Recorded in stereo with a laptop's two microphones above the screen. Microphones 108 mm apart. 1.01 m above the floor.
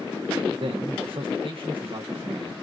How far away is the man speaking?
About 0.9 m.